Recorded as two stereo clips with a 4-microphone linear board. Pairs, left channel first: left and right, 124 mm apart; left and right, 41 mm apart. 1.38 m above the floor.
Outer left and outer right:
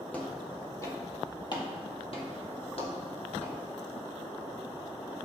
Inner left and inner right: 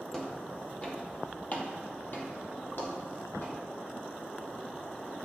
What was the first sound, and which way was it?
Footsteps, 10° left (ahead or behind).